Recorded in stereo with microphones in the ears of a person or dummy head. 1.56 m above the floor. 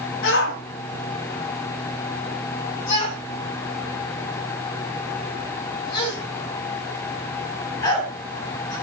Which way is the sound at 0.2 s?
65° left (ahead or behind).